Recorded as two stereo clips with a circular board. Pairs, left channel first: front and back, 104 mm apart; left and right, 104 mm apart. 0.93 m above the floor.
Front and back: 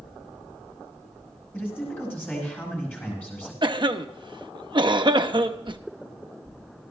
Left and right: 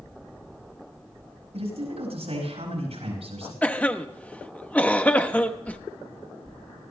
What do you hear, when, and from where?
1.5 s a man speaking: 75° right, 10 m
3.6 s a cough: 160° left, 0.9 m